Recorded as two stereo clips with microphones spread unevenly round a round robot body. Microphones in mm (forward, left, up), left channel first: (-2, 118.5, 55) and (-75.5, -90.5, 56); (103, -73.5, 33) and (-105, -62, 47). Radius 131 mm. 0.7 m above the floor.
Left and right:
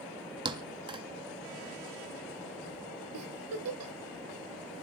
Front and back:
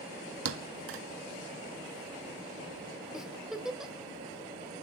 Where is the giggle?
95° right, 1.7 m.